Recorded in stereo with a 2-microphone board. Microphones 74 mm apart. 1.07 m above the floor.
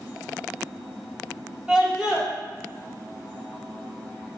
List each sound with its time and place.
1.7 s a scream: 10° right (ahead or behind), 4.5 m